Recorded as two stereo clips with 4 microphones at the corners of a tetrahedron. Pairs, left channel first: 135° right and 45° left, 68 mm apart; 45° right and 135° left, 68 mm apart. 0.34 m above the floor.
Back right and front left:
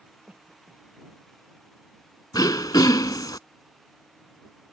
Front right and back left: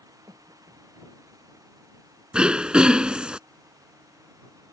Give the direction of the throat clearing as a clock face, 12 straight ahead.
5 o'clock.